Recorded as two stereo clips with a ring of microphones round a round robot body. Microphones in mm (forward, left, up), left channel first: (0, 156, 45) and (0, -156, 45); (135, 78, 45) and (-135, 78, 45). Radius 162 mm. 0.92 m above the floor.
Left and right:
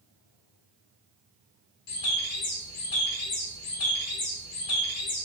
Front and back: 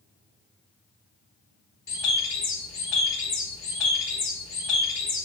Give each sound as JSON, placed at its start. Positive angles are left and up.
{"t": 1.9, "sound": "a bird", "azimuth_deg": 45, "distance_m": 0.7}